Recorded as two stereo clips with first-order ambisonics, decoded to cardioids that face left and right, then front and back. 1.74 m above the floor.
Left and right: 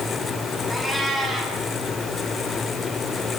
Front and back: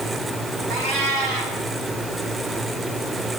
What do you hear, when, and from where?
0.7 s a cat meowing: 175° right, 7.5 m